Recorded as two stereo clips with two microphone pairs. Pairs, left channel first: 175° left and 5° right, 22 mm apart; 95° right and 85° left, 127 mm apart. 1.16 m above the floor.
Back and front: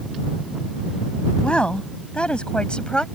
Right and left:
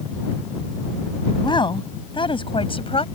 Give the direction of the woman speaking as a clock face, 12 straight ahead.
5 o'clock.